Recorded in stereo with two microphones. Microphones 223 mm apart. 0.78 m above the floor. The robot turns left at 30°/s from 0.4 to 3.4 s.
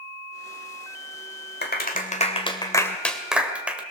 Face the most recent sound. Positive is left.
turn(degrees=-5)  # may be behind; listen again after turning